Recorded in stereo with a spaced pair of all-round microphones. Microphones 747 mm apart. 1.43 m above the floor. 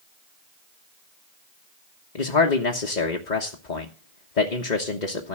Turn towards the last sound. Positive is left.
turn(degrees=75)  # may be behind; listen again after turning